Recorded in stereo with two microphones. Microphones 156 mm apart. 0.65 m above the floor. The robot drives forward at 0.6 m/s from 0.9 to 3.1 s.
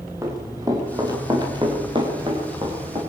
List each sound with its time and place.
0.2 s running footsteps: 20° right (ahead or behind), 7.5 m; by 3.0 s 40° right (ahead or behind), 7.5 m